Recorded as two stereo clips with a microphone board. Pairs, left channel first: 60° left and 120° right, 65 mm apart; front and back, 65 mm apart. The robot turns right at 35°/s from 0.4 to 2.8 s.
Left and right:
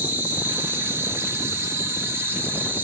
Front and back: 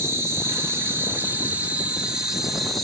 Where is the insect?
170° right, 0.8 m; by 2.8 s 85° right, 0.8 m.